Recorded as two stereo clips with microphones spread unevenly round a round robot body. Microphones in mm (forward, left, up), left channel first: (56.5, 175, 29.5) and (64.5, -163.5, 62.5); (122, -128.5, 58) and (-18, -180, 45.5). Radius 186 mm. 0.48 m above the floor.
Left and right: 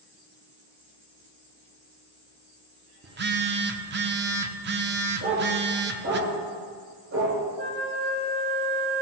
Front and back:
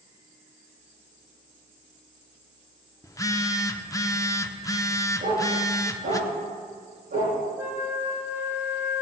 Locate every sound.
3.0 s a phone buzzing: 45° right, 0.9 m
5.2 s a dog barking: 150° right, 5.5 m
7.6 s a flute: 80° right, 3 m